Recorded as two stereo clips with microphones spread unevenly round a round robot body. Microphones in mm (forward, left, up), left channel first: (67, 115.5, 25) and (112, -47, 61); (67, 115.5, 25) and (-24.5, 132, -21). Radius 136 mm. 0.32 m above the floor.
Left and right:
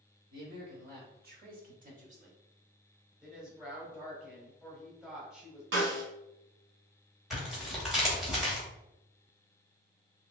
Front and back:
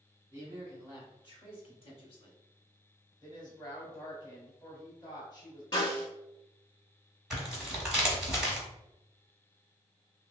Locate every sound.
0.3 s a man speaking: 110° right, 1.5 m; by 2.4 s 25° right, 1.2 m
3.2 s a woman speaking: 40° left, 1.3 m
5.7 s a snare drum: 85° right, 0.9 m
7.3 s tearing paper: straight behind, 1.0 m